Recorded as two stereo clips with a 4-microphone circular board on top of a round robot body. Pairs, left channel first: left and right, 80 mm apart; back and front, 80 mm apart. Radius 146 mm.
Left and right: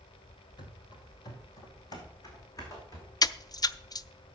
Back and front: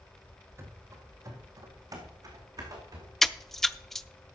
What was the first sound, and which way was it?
Running footsteps, 55° left.